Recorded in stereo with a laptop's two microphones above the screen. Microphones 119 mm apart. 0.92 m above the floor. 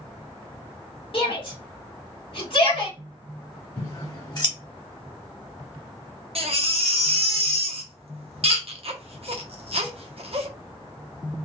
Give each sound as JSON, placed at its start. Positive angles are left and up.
{"t": 1.1, "sound": "a shout", "side_deg": 55, "distance_m": 1.4}
{"t": 3.8, "sound": "scissors", "side_deg": 35, "distance_m": 0.9}
{"t": 6.3, "sound": "a baby crying", "side_deg": -60, "distance_m": 0.8}